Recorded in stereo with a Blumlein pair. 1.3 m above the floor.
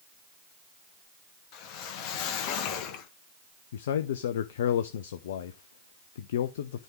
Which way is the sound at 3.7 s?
60° left.